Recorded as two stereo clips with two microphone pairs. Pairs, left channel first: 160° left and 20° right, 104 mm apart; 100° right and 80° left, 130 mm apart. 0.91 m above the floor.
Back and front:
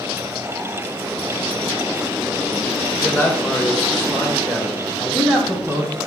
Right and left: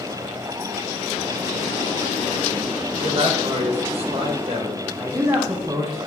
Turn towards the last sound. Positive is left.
turn(degrees=95)